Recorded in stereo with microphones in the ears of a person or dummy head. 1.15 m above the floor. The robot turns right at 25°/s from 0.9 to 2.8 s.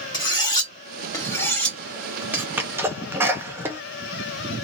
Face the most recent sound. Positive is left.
turn(degrees=-15)  # may be behind; listen again after turning